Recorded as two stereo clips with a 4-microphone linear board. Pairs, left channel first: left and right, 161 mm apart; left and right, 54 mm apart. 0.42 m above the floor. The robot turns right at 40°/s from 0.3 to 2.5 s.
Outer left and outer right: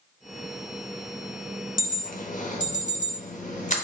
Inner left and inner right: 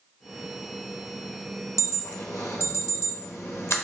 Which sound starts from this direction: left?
An alarm, at 1.8 s.